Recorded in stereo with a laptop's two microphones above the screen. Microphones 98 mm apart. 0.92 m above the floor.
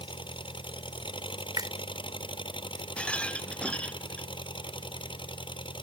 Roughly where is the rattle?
Centre.